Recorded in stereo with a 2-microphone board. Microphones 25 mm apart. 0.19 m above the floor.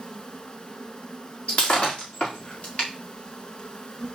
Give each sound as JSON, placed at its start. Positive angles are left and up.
{"t": 0.0, "sound": "an insect", "side_deg": 40, "distance_m": 1.0}
{"t": 1.5, "sound": "breaking glass", "side_deg": 65, "distance_m": 5.0}